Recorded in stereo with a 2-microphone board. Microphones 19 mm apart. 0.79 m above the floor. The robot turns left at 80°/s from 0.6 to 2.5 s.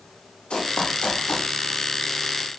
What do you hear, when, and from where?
0.5 s running footsteps: 65° left (ahead or behind), 7 m; by 1.5 s 40° left (ahead or behind), 7 m